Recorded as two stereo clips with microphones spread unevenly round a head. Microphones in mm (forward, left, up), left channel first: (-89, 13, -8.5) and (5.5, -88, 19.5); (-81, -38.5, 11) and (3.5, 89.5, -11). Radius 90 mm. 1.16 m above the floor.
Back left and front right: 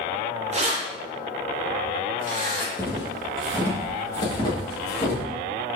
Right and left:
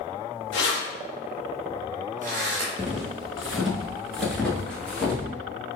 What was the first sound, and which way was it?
Keys jangling, 90° right.